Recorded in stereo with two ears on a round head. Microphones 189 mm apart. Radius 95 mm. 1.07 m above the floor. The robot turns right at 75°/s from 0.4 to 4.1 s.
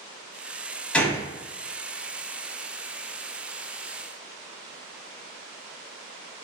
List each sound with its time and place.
0.9 s a gunshot: 5° left (ahead or behind), 1.0 m; by 1.3 s 15° left (ahead or behind), 1.0 m